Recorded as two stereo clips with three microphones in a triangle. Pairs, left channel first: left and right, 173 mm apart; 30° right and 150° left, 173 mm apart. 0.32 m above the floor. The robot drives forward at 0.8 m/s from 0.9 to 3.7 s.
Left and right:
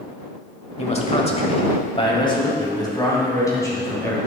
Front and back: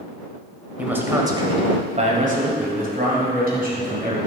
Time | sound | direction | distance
0.8 | a man speaking | 75° left | 1.2 m